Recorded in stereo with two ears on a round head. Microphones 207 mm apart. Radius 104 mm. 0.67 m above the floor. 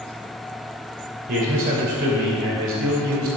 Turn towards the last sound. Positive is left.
turn(degrees=-70)  # may be behind; listen again after turning